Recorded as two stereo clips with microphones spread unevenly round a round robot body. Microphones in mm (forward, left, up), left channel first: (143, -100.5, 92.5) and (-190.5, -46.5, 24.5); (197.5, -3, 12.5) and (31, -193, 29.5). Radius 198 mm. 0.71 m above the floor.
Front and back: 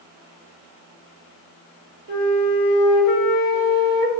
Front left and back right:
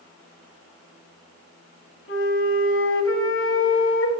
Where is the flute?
10° left, 1.7 m.